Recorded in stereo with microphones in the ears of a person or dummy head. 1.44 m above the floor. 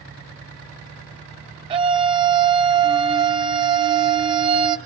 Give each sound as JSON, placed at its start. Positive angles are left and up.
{"t": 1.7, "sound": "a scream", "side_deg": -35, "distance_m": 1.2}